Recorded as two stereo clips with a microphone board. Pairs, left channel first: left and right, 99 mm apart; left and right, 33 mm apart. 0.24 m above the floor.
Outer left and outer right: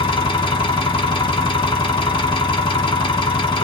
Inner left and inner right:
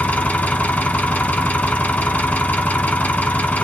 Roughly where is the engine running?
Left.